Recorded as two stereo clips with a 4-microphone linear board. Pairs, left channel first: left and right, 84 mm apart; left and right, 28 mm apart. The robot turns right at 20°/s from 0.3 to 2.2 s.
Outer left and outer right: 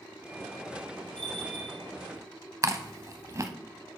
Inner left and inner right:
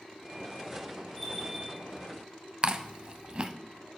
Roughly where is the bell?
Centre.